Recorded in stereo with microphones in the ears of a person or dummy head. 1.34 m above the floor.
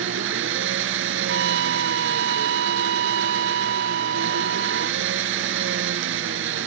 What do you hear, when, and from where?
0.0 s an engine running: 80° right
1.3 s a trumpet: 70° right (ahead or behind)